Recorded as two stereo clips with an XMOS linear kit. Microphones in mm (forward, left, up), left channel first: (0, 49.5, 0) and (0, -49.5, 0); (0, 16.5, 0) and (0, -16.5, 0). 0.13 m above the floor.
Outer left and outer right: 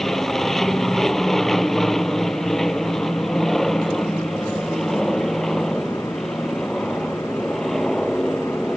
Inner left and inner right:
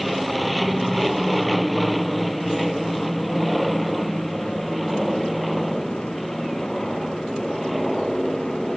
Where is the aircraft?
5° left (ahead or behind).